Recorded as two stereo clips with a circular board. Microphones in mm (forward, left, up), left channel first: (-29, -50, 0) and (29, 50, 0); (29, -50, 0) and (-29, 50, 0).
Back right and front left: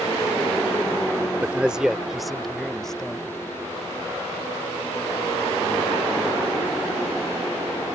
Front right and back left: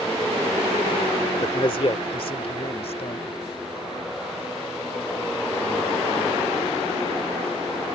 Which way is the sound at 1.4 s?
15° right.